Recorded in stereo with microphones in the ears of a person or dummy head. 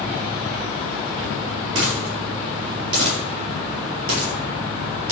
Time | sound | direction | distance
1.8 | a dropped coin | 75° right (ahead or behind) | 5 m